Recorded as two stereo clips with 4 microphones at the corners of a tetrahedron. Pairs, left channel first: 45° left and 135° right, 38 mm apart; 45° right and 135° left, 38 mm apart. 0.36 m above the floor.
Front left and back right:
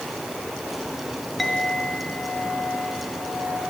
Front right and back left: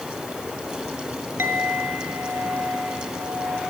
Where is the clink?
130° left, 3.5 m.